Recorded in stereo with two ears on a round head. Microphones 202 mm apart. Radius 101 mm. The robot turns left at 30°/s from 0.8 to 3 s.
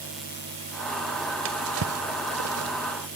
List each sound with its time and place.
1.4 s a drawer: 60° right (ahead or behind), 0.7 m; by 2.7 s 70° right (ahead or behind), 0.7 m